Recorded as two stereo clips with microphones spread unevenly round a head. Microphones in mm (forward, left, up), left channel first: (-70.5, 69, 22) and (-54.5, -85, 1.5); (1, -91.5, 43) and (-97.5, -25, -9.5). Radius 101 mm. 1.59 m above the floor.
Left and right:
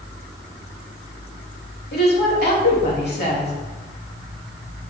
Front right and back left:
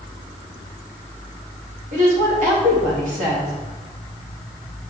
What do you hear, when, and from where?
1.9 s a woman speaking: 105° left, 3 m